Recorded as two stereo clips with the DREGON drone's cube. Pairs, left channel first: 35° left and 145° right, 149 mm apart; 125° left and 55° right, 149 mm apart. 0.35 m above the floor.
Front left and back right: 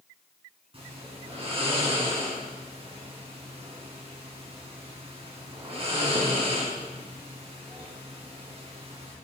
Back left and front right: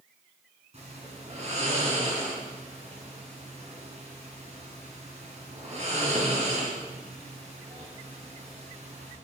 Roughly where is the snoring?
Right.